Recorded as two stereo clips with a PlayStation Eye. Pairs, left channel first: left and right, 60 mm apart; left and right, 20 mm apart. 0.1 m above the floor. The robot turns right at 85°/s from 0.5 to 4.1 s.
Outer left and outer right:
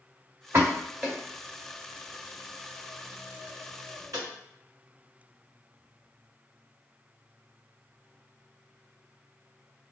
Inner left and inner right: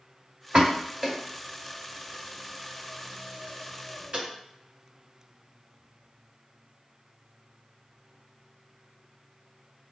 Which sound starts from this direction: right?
A pop, at 0.5 s.